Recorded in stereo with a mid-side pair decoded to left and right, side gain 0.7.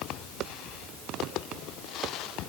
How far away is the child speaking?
No child speaking in this recording.